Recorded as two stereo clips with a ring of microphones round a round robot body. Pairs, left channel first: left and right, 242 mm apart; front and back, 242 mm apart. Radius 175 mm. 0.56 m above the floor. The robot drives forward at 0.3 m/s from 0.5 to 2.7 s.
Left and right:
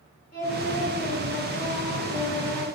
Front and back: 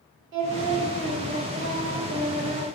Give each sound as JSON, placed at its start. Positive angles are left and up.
{"t": 0.3, "sound": "singing", "azimuth_deg": 150, "distance_m": 1.2}